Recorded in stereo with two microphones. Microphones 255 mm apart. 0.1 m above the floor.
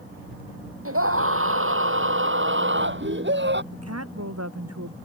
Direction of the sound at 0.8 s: 60° right (ahead or behind).